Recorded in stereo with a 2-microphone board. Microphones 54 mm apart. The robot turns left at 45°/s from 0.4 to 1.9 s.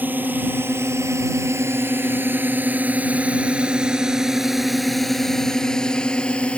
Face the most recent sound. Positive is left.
turn(degrees=20)  # may be behind; listen again after turning